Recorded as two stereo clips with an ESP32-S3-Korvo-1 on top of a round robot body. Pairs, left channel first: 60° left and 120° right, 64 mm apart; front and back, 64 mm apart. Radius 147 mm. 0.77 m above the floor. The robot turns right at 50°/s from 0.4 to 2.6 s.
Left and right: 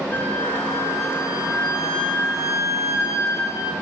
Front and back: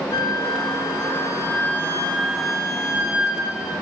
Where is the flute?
10° right, 1.1 m; by 3.7 s 100° left, 1.1 m.